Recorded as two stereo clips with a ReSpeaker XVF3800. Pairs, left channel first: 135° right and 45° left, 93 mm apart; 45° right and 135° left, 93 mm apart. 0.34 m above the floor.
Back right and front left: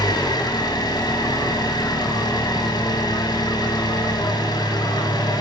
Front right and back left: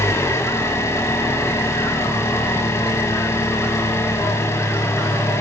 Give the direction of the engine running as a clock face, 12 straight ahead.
3 o'clock.